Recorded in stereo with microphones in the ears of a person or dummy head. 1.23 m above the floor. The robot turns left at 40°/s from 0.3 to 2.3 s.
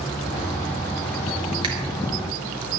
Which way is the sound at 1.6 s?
25° right (ahead or behind).